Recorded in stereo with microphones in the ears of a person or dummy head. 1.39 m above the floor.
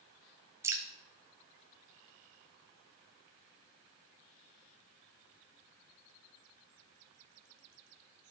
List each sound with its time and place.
0.6 s dripping: 15° right (ahead or behind), 0.7 m